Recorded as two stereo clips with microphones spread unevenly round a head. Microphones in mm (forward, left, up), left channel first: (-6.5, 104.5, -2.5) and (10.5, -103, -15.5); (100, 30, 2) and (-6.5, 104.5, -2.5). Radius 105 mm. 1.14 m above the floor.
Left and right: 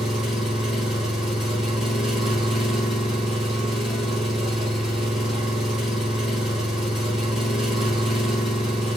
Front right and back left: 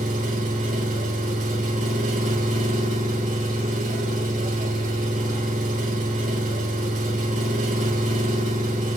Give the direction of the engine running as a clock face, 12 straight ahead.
6 o'clock.